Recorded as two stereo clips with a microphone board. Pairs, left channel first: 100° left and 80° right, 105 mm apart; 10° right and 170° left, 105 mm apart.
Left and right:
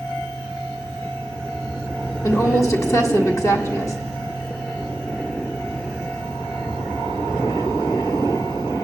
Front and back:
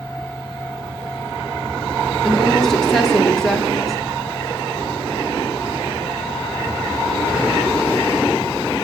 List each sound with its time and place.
2.2 s a woman speaking: 75° left, 1.4 m